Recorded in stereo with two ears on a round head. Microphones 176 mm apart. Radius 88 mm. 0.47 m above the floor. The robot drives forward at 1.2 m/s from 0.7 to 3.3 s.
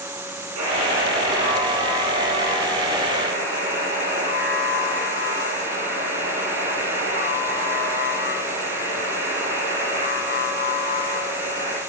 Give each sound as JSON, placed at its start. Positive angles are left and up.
{"t": 0.6, "sound": "a buzzer", "side_deg": -85, "distance_m": 4.0}